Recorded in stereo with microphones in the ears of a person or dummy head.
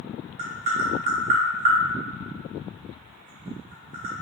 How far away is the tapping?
About 0.6 m.